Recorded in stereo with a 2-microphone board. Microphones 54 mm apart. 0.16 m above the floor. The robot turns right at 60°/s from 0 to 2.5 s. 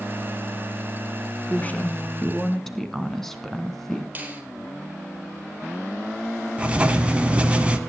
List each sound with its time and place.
1.5 s a woman speaking: 110° left, 1.7 m; by 4.0 s 170° left, 1.7 m
4.2 s a finger snap: 30° right (ahead or behind), 3.5 m
6.6 s writing: 20° right (ahead or behind), 1.4 m